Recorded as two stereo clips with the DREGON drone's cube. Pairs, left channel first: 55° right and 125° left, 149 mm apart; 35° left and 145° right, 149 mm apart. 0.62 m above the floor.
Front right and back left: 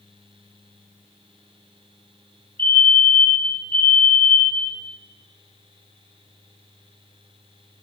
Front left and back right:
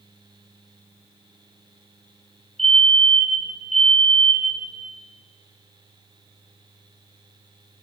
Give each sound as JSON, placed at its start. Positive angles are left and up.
{"t": 2.6, "sound": "a fire alarm", "azimuth_deg": -55, "distance_m": 5.5}